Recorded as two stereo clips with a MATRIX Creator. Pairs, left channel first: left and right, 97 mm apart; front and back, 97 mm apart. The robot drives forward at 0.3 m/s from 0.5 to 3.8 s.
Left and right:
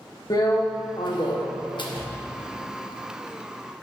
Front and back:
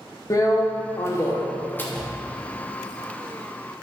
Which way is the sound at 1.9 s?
80° right.